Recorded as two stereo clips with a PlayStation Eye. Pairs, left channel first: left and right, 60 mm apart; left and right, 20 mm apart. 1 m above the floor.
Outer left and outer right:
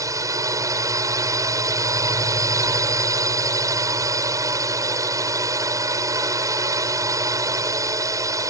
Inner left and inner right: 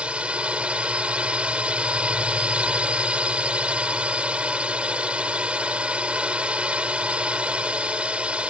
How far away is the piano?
I don't hear a piano.